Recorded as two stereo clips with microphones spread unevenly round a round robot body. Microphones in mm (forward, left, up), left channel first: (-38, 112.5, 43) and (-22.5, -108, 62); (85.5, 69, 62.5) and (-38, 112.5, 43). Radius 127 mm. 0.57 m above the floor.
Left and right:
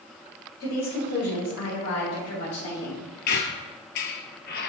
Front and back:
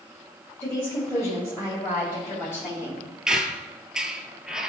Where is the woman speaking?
55° left, 2.5 m.